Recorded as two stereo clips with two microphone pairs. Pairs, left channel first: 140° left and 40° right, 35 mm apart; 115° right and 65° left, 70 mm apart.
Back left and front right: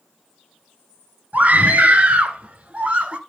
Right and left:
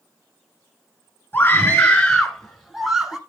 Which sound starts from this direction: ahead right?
A scream, at 1.3 s.